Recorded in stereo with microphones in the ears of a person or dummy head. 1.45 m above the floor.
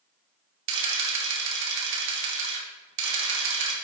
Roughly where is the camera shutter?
Right.